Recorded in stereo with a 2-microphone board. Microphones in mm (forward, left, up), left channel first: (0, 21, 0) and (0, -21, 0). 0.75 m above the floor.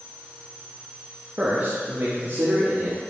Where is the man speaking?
30° right (ahead or behind), 0.7 m; by 3.0 s 60° right (ahead or behind), 1.7 m.